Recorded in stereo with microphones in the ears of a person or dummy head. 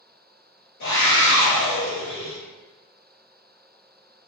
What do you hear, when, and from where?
0.8 s a scream: 55° left (ahead or behind), 0.7 m